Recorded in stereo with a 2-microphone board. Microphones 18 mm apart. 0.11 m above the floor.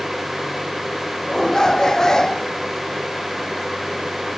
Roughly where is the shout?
Left.